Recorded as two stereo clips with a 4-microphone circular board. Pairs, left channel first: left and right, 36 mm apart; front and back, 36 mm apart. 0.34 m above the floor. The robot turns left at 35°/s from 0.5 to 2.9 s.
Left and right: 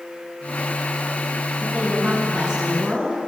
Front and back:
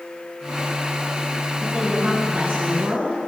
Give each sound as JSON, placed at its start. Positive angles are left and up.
{"t": 1.6, "sound": "a woman speaking", "azimuth_deg": -120, "distance_m": 3.0}